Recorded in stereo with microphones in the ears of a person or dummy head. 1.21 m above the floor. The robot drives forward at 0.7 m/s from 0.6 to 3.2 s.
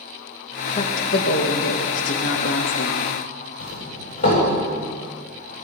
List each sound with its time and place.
0.8 s a woman speaking: 40° left (ahead or behind), 1.7 m; by 3.3 s 55° left (ahead or behind), 1.3 m
3.6 s a doorbell: 45° left (ahead or behind), 7.5 m